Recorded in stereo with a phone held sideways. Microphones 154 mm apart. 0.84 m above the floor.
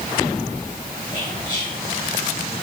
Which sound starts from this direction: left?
Whispering, at 1.1 s.